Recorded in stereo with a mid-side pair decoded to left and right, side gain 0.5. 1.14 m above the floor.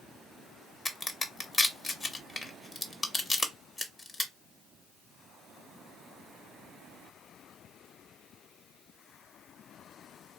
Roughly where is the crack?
Ahead left.